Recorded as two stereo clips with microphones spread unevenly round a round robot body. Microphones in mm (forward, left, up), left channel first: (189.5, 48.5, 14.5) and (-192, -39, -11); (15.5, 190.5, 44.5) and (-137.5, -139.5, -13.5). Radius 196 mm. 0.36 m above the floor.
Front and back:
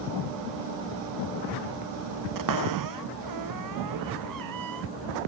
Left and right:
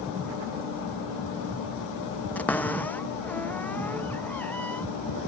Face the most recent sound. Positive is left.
turn(degrees=150)